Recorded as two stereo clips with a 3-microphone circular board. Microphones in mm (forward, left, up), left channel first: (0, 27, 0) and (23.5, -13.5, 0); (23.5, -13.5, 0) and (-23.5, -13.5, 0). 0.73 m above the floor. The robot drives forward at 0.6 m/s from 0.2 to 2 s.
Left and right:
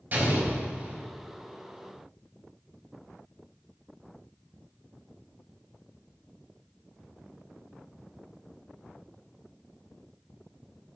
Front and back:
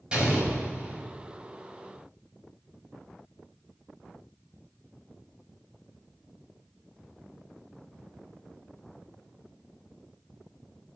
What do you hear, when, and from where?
0.1 s an explosion: 115° right, 4 m; by 1.1 s 120° right, 4 m